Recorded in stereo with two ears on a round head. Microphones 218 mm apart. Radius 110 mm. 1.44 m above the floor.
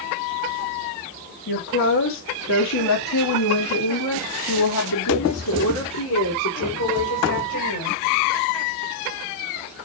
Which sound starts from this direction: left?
A woman speaking, at 1.5 s.